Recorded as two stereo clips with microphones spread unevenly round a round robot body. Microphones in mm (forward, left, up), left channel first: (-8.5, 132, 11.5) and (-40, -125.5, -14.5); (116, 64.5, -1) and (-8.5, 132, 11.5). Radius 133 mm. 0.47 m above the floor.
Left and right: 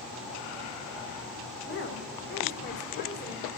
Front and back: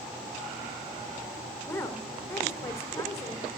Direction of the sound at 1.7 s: 35° left.